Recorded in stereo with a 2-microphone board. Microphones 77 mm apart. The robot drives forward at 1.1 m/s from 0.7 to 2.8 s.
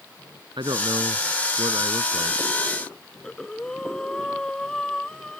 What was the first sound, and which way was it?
A man speaking, 85° right.